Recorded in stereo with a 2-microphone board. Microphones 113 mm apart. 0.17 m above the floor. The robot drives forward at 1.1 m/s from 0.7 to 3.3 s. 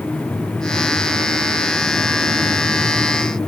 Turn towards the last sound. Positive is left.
No sound to turn to.